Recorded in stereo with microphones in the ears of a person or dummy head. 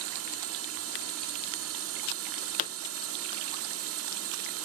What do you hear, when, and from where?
0.0 s a drone: 70° right (ahead or behind)
2.6 s a pop: 45° left (ahead or behind)